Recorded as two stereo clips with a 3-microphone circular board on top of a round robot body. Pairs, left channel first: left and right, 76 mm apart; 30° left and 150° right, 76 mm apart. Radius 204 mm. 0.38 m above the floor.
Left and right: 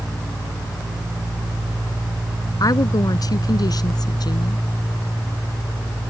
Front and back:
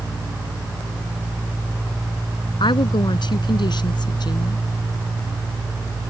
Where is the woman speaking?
50° left; by 4.6 s 60° left.